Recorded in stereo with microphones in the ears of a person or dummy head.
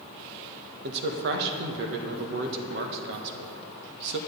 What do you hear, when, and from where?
0.8 s a man speaking: 65° right (ahead or behind), 1.5 m